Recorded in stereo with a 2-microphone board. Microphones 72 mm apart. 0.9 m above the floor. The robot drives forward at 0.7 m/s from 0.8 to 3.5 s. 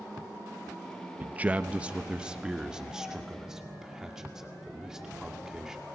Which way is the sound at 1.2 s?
25° right (ahead or behind).